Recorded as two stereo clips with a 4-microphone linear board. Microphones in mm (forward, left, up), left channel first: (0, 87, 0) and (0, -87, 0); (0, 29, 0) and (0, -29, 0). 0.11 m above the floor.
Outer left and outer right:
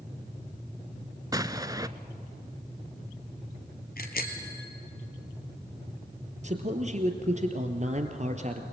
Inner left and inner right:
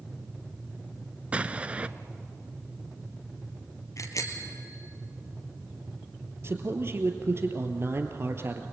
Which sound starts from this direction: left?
A bicycle bell, at 4.0 s.